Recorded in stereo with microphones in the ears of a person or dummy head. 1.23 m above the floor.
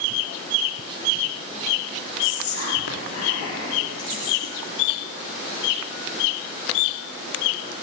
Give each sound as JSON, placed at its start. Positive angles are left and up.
{"t": 2.2, "sound": "whispering", "side_deg": 80, "distance_m": 3.5}